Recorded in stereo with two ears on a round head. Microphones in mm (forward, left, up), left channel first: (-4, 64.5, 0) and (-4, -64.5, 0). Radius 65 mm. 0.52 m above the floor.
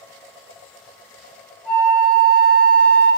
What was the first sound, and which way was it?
A flute, 10° left (ahead or behind).